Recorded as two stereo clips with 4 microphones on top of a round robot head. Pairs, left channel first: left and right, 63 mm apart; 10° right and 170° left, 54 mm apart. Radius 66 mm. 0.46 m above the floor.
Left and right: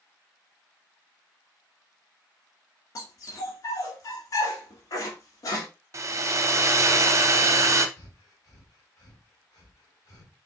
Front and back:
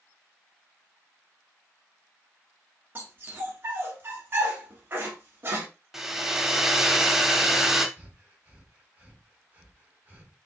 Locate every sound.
3.0 s a dog barking: 120° left, 1.5 m
5.9 s a hair dryer: 110° right, 0.7 m
8.0 s breathing: 115° left, 1.8 m